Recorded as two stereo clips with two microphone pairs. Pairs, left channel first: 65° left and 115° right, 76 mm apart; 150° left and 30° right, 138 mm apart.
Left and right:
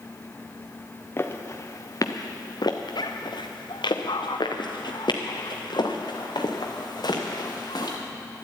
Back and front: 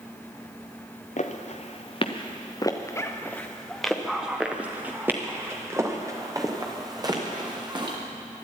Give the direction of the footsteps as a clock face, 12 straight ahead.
8 o'clock.